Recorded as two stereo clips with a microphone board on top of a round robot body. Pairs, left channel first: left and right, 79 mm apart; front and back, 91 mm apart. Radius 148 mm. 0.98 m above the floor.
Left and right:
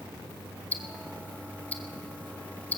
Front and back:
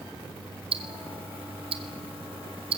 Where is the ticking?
160° left, 1.2 m.